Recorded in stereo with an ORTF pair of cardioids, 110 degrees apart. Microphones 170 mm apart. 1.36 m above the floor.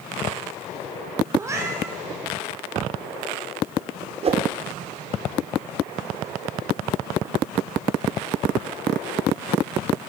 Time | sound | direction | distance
1.4 | a cat meowing | 20° right | 4.5 m
4.2 | a whoosh | 40° right | 3 m